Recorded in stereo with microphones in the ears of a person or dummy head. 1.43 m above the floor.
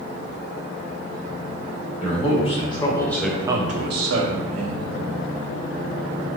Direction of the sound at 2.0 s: 40° left (ahead or behind).